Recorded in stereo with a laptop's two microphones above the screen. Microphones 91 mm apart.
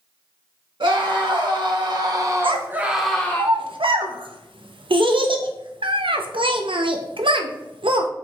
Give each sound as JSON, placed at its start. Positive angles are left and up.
{"t": 0.8, "sound": "a scream", "side_deg": -65, "distance_m": 1.6}
{"t": 2.4, "sound": "a child speaking", "side_deg": -75, "distance_m": 0.5}